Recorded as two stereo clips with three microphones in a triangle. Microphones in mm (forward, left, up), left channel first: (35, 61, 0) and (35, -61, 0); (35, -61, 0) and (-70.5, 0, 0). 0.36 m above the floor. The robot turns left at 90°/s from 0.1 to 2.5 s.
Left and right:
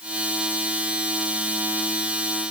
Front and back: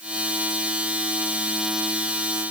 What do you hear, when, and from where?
Only background noise.